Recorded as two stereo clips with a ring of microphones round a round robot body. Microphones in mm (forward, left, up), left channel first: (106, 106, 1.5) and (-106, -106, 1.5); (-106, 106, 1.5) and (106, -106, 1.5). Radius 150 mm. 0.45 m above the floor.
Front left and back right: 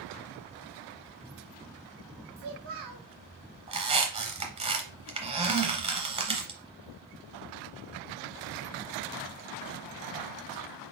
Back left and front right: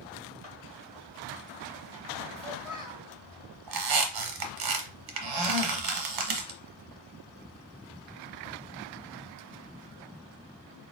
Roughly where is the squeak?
Ahead right.